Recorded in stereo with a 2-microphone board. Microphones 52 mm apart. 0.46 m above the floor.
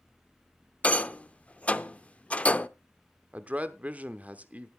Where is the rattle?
25° left (ahead or behind), 0.5 m.